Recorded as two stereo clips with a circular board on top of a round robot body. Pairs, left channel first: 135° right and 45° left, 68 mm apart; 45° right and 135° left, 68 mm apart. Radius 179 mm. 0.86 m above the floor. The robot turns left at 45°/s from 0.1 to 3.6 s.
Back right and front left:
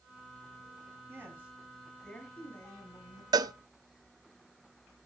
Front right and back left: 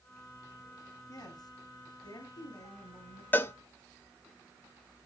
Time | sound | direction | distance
1.1 | a woman speaking | 10° right | 9.5 m
3.3 | a cowbell | 20° left | 0.8 m